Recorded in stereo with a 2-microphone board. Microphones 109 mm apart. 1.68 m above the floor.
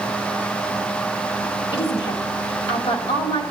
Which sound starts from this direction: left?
A woman speaking, at 1.7 s.